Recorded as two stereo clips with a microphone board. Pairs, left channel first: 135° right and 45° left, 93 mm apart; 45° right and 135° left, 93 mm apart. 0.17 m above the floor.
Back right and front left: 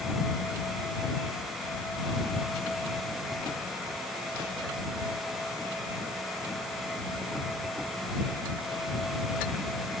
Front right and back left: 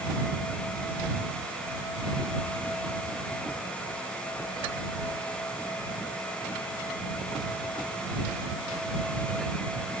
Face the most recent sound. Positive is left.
No sound to turn to.